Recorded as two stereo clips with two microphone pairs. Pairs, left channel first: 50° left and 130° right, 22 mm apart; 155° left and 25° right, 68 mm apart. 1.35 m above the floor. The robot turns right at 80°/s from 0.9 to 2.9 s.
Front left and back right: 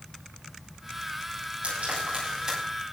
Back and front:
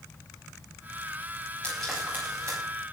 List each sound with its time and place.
1.6 s frying: 130° right, 9 m; by 2.6 s 55° right, 9 m